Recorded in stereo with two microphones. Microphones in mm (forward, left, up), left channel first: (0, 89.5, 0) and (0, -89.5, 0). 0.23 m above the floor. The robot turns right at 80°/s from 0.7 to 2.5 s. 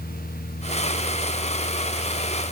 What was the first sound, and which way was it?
Only background noise.